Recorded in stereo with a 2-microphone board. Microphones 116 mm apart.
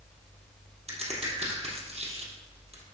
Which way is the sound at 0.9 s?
60° right (ahead or behind).